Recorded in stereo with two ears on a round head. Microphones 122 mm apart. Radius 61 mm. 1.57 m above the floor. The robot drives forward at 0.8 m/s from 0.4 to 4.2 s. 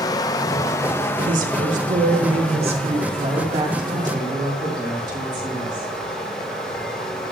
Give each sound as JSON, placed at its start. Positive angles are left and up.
{"t": 0.0, "sound": "running water", "side_deg": 25, "distance_m": 0.7}
{"t": 1.3, "sound": "a woman speaking", "side_deg": -70, "distance_m": 2.0}